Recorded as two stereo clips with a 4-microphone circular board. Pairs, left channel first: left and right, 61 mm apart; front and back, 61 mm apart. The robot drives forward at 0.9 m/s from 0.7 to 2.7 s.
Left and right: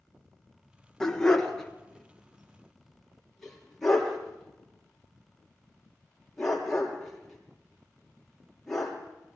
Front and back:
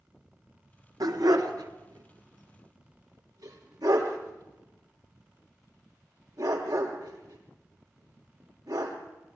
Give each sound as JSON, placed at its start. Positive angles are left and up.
{"t": 1.0, "sound": "a dog barking", "azimuth_deg": 170, "distance_m": 1.5}